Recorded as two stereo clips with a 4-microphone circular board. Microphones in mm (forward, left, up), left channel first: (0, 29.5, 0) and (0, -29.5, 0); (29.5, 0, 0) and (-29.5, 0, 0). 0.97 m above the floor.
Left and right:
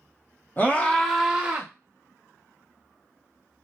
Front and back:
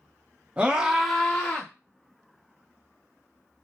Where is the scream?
120° left, 0.8 m; by 1.7 s 45° right, 0.8 m.